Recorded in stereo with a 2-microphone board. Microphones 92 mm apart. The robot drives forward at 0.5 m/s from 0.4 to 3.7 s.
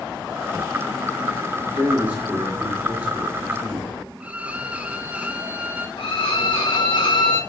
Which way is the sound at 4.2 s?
15° right (ahead or behind).